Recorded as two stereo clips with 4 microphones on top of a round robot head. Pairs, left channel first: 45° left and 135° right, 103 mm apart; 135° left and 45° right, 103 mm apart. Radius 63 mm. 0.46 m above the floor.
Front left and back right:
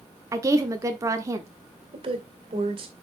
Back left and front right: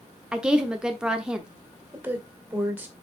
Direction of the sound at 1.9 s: 115° right.